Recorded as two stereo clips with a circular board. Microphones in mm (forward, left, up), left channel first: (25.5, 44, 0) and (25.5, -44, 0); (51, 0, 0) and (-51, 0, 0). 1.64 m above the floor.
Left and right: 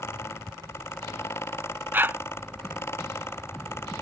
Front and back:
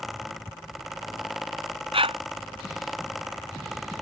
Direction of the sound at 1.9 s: 160° right.